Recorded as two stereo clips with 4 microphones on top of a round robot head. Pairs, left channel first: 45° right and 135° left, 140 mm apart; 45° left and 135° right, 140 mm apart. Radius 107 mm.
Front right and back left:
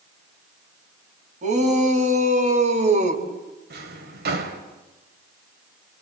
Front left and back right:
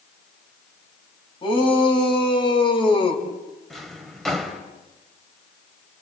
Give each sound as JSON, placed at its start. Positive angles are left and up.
{"t": 1.4, "sound": "a shout", "azimuth_deg": 100, "distance_m": 6.5}
{"t": 3.7, "sound": "a drawer", "azimuth_deg": 130, "distance_m": 3.0}